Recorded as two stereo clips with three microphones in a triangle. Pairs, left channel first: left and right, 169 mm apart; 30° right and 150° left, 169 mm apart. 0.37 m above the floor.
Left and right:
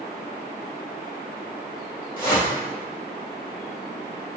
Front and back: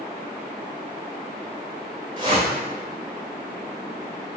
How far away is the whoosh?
About 1.4 m.